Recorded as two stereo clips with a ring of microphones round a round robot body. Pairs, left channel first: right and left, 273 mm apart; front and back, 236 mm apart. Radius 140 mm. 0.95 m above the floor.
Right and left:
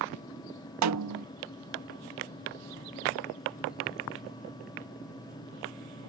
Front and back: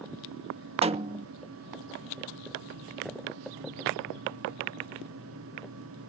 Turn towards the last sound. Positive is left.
turn(degrees=115)